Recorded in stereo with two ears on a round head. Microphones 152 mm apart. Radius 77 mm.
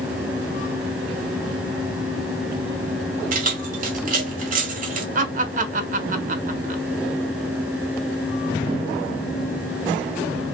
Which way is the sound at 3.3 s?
50° right (ahead or behind).